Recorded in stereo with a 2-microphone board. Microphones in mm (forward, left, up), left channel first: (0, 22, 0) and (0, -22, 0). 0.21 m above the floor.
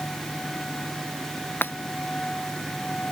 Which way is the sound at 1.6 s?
55° left (ahead or behind).